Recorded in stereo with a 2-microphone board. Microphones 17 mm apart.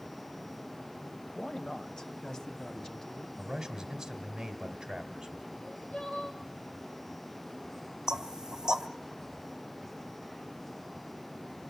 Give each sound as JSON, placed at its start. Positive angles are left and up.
{"t": 1.4, "sound": "a man speaking", "side_deg": 45, "distance_m": 1.3}
{"t": 3.4, "sound": "a man speaking", "side_deg": -20, "distance_m": 2.5}
{"t": 5.5, "sound": "crying", "side_deg": 70, "distance_m": 4.5}
{"t": 8.1, "sound": "knocking", "side_deg": -35, "distance_m": 1.1}